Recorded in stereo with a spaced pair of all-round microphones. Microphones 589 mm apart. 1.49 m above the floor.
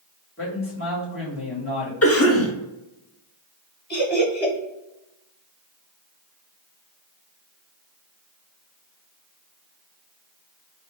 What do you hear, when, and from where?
0.4 s a man speaking: 20° left (ahead or behind), 1.8 m
2.0 s a cough: 25° left (ahead or behind), 0.8 m
3.9 s laughter: 85° left, 1.2 m